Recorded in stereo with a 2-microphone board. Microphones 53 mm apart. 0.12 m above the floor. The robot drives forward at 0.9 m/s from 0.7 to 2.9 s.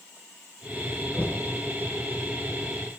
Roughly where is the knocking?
Left.